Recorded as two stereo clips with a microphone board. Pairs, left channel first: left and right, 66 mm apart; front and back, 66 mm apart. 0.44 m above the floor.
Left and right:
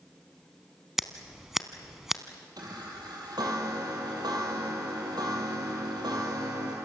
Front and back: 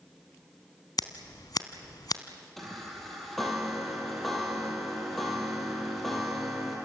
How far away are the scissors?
About 1.1 m.